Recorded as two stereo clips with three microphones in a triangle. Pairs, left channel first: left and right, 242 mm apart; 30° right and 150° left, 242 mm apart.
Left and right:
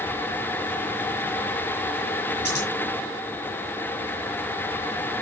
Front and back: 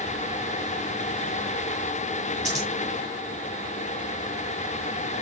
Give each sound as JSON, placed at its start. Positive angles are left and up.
{"t": 2.5, "sound": "scissors", "azimuth_deg": -150, "distance_m": 5.0}